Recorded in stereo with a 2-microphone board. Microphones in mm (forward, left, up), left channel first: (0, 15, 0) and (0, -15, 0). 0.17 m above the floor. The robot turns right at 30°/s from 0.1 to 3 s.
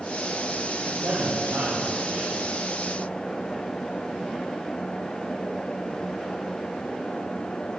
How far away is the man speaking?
About 7 m.